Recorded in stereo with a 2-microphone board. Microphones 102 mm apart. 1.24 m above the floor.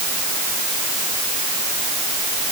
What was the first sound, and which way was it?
Only background noise.